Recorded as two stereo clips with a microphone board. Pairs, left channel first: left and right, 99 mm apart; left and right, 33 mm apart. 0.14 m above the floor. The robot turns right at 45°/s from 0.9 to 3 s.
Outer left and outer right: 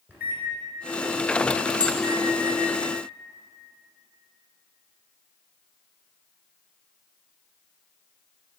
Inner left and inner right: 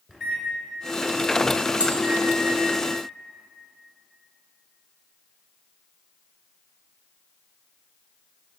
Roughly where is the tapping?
Right.